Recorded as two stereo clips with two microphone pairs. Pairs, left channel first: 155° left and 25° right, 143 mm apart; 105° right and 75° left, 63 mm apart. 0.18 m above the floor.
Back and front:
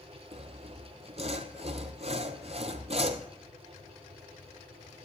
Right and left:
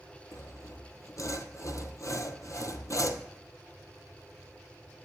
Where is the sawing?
70° right, 0.8 m.